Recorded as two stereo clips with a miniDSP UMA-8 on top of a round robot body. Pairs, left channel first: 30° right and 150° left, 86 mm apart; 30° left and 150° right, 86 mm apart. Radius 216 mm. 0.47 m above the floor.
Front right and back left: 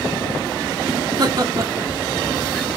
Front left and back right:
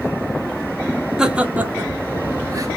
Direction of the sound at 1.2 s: 130° left.